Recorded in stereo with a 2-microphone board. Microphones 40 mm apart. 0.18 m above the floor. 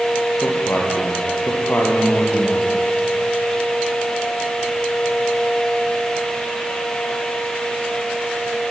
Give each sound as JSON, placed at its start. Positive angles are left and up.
{"t": 0.4, "sound": "a man speaking", "side_deg": 55, "distance_m": 5.5}